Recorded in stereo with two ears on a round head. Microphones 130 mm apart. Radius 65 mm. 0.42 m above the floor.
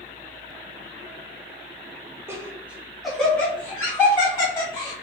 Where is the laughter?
20° right (ahead or behind), 0.8 m; by 4.9 s 25° left (ahead or behind), 1.6 m.